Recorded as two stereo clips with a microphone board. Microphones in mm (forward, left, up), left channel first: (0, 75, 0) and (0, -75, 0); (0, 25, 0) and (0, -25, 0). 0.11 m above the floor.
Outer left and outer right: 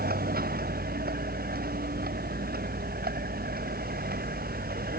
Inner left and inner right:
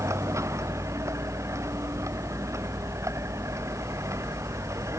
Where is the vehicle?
80° right; by 5.0 s 85° right.